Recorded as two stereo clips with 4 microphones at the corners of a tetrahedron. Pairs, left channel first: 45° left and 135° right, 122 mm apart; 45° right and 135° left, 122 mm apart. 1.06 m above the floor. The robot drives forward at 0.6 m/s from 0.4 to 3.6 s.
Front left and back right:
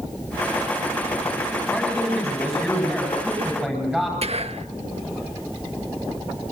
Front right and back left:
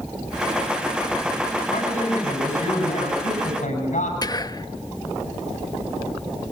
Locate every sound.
1.7 s a man speaking: 45° right, 10 m; by 4.1 s 50° right, 9 m
4.2 s whispering: 100° right, 1.1 m